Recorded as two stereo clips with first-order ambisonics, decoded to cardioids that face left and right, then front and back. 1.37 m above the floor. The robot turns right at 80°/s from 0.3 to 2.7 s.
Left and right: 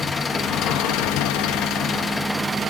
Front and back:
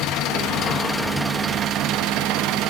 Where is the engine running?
20° left, 0.9 m; by 2.7 s 150° right, 0.9 m.